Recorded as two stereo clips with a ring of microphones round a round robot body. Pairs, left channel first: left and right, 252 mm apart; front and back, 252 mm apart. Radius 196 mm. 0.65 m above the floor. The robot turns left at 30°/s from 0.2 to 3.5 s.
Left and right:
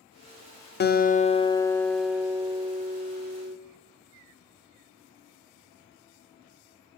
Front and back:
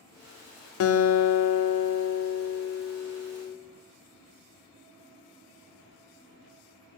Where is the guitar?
35° left, 0.7 m; by 3.6 s 45° right, 0.7 m.